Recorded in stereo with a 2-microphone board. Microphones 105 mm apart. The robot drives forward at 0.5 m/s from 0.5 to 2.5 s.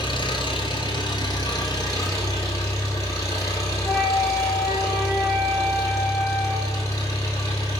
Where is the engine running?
50° left (ahead or behind), 1.5 m; by 7.8 s 30° left (ahead or behind), 2 m.